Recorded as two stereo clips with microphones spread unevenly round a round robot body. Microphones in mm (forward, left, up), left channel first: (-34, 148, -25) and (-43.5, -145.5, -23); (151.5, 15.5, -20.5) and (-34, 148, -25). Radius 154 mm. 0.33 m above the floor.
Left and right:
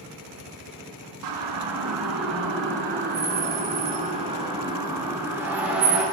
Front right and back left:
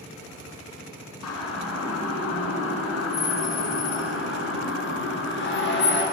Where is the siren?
70° right, 5 m; by 6.0 s 5° right, 7 m.